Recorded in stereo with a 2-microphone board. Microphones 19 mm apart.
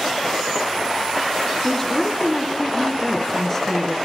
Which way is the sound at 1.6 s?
20° left (ahead or behind).